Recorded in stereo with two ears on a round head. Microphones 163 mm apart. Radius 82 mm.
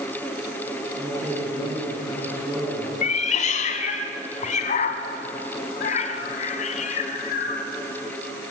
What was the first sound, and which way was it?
A man speaking, 15° right (ahead or behind).